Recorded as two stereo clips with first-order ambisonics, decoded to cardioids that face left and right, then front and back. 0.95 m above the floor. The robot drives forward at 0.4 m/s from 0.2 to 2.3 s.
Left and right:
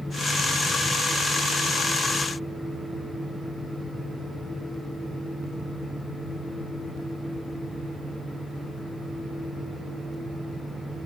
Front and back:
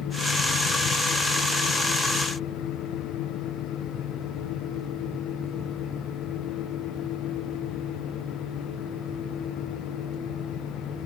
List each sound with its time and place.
Only background noise.